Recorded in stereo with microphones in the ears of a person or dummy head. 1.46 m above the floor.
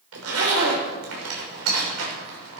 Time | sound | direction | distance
0.1 | a zipper | 85° right | 6 m